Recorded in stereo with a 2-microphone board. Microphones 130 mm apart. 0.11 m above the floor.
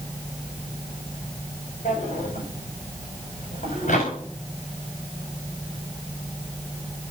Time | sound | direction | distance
1.9 | a drawer | 75° left (ahead or behind) | 6 m